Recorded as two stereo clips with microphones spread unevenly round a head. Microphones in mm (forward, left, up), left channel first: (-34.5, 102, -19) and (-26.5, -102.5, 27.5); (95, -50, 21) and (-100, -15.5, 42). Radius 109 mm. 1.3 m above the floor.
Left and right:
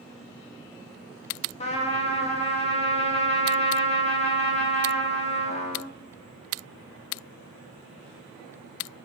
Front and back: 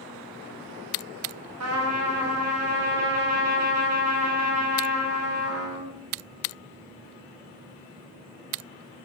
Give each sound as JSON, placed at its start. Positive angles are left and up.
{"t": 1.6, "sound": "a trumpet", "azimuth_deg": 155, "distance_m": 0.5}